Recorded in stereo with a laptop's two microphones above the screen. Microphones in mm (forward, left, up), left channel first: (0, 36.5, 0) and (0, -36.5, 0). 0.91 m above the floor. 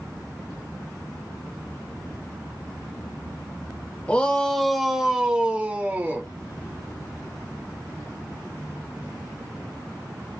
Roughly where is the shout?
Centre.